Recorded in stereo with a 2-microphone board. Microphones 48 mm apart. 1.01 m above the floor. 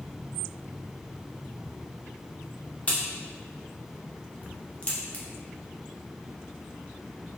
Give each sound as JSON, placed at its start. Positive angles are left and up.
{"t": 2.9, "sound": "a crack", "side_deg": 30, "distance_m": 0.6}